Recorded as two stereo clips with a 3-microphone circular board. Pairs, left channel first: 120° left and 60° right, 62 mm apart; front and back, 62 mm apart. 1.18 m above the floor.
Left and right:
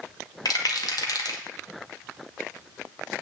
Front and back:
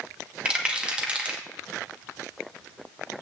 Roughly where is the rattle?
Left.